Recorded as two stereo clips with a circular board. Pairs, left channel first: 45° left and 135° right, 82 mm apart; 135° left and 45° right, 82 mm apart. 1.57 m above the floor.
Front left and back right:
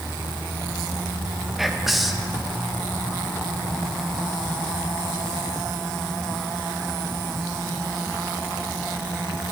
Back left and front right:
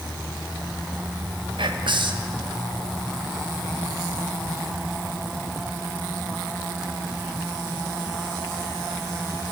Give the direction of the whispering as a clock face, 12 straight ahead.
2 o'clock.